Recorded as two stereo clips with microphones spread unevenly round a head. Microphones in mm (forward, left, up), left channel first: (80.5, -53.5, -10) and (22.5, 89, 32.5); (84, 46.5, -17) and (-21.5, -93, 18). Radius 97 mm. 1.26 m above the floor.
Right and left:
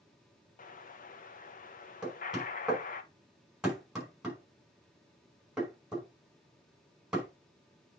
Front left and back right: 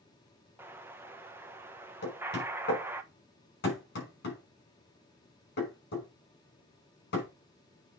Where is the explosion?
45° right, 1.2 m.